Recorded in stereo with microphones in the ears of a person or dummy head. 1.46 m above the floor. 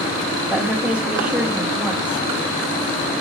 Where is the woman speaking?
5° right (ahead or behind), 1.2 m.